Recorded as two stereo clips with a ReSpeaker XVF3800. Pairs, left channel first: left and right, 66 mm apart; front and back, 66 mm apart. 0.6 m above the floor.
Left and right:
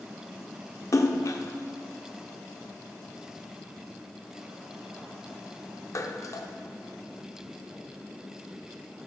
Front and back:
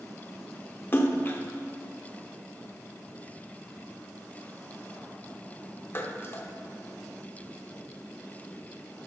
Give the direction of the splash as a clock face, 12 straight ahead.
10 o'clock.